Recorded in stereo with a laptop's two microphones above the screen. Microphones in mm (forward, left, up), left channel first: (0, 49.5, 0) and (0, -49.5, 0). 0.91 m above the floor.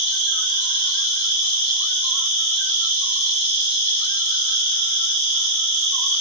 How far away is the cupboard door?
No cupboard door in this recording.